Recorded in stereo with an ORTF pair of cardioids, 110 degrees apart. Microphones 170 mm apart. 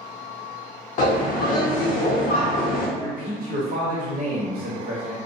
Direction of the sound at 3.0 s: 55° right.